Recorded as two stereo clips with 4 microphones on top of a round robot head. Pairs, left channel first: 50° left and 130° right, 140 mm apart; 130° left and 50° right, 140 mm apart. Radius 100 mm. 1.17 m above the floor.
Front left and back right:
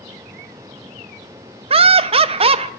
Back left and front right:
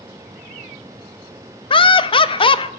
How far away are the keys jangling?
I don't hear keys jangling.